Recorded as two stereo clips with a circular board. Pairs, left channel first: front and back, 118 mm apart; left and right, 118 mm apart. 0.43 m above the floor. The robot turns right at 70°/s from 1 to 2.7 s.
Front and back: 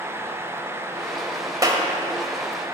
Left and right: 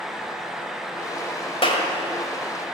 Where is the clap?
120° left, 2.0 m; by 1.9 s 140° left, 2.0 m.